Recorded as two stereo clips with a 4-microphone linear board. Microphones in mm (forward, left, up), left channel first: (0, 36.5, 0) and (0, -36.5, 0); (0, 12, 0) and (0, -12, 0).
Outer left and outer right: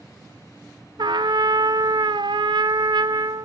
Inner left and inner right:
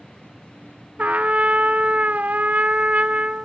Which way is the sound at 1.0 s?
85° right.